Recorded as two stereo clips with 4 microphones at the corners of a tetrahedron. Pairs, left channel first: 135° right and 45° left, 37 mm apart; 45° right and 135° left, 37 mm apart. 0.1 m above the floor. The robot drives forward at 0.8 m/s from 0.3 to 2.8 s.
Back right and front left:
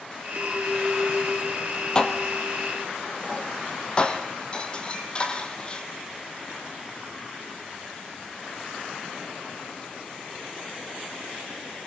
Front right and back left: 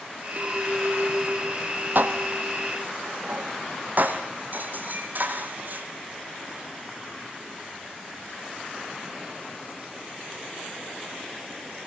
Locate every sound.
0.4 s a clink: 100° left, 2 m; by 3.0 s 145° left, 3 m
1.9 s dishes clattering: 155° left, 2.0 m; by 5.9 s 165° left, 2.5 m